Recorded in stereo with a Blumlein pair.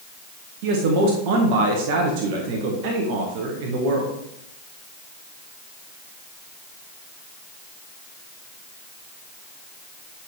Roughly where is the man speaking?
Ahead right.